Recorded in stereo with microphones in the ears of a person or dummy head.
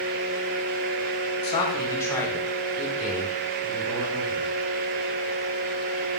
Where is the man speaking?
35° left (ahead or behind), 1.0 m; by 4.5 s 5° right (ahead or behind), 3.5 m.